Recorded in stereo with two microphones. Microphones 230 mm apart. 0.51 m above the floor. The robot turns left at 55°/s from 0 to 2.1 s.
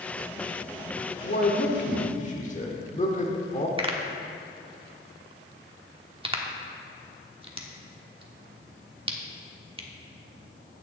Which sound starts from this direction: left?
A man speaking, at 1.2 s.